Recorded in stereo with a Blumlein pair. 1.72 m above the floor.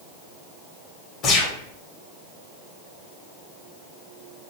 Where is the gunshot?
35° left, 0.8 m.